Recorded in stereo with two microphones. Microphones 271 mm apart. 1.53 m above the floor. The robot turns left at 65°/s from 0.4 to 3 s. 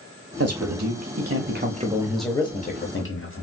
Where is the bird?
No bird in this recording.